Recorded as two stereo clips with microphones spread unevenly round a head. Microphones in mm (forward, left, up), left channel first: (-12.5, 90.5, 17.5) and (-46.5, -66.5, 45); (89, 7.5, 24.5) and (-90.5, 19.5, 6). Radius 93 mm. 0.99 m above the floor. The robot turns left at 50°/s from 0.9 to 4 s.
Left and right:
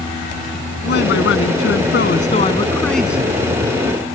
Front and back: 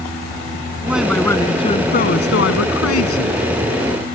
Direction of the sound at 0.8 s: 95° left.